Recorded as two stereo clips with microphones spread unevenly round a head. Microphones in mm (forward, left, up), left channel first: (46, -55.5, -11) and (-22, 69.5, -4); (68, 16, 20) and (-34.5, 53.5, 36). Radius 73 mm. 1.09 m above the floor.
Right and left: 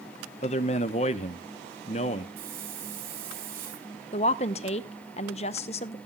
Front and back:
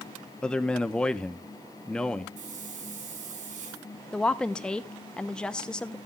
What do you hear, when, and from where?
0.4 s a man speaking: 95° right, 0.9 m
2.4 s a hiss: 150° left, 4 m
4.1 s a woman speaking: 95° right, 0.7 m